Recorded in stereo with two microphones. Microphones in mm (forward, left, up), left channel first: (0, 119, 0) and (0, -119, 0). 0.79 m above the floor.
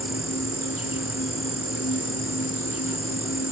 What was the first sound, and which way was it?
An insect, 70° left (ahead or behind).